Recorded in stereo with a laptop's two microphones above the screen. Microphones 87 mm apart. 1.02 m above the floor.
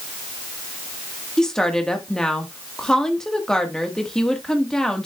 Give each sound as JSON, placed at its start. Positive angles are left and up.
{"t": 1.4, "sound": "a woman speaking", "side_deg": 5, "distance_m": 1.4}